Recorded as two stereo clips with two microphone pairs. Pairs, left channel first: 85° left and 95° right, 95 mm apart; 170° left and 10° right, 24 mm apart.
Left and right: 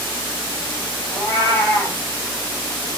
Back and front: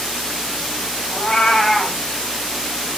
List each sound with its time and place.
1.1 s a cat meowing: 135° left, 1.8 m